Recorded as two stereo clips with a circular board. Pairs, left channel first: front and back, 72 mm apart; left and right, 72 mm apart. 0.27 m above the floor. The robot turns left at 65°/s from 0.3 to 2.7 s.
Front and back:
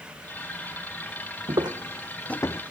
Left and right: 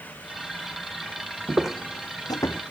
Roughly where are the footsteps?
Behind right.